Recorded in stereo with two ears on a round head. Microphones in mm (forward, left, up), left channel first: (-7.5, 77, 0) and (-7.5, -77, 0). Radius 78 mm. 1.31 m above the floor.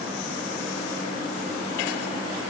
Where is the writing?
I don't hear writing.